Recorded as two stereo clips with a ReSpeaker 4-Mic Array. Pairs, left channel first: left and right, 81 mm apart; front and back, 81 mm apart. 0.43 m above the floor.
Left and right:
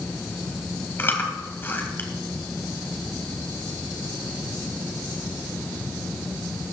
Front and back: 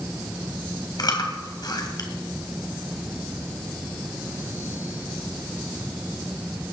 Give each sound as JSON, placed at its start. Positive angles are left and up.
{"t": 1.0, "sound": "chewing", "azimuth_deg": 30, "distance_m": 2.5}